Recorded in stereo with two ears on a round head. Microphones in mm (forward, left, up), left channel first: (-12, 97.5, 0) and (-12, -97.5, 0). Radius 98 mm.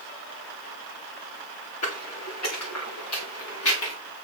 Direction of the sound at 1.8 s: 75° left (ahead or behind).